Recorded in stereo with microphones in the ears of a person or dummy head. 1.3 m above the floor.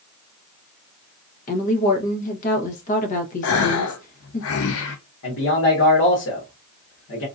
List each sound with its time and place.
1.5 s a woman speaking: 40° left (ahead or behind), 1.0 m
3.4 s a gasp: 70° left (ahead or behind), 0.6 m
5.2 s a man speaking: 70° left (ahead or behind), 1.6 m